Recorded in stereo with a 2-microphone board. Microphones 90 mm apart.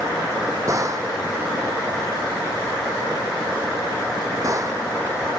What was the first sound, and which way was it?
A gunshot, 40° right (ahead or behind).